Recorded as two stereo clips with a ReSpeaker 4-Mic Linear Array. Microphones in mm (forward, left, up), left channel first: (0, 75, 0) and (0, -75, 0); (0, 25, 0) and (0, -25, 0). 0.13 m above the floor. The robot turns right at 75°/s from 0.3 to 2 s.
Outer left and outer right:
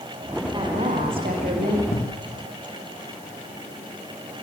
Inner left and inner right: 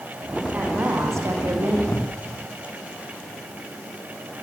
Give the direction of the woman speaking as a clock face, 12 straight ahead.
5 o'clock.